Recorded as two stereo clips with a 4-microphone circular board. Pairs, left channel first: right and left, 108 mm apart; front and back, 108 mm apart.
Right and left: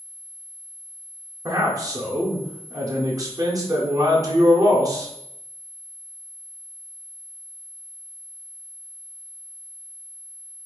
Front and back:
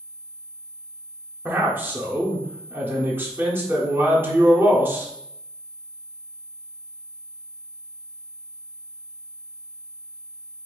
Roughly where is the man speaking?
Behind left.